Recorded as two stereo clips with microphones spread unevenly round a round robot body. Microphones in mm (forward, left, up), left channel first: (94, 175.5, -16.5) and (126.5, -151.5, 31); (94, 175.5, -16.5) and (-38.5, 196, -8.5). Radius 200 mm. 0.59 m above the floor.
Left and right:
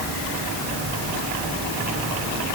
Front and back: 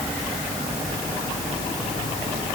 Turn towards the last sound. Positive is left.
No sound to turn to.